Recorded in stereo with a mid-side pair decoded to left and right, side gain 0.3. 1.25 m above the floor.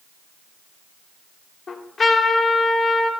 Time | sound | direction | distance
1.7 | a trumpet | 65° left | 1.7 m